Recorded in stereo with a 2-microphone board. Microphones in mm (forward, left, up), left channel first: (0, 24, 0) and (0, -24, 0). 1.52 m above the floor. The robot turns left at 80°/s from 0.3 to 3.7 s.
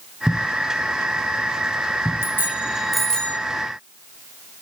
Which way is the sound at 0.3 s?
20° right (ahead or behind).